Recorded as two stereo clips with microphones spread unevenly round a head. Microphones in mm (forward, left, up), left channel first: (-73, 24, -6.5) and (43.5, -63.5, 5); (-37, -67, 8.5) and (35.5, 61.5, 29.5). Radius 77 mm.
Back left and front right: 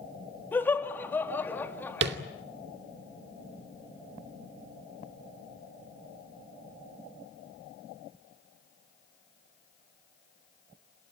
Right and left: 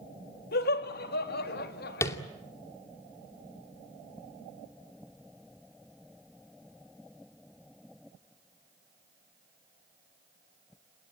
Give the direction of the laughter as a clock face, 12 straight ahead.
5 o'clock.